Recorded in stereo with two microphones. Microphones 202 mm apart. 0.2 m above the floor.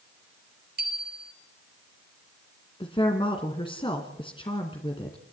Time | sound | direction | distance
0.8 | a bicycle bell | 50° right (ahead or behind) | 3 m
2.8 | a woman speaking | 25° left (ahead or behind) | 2.0 m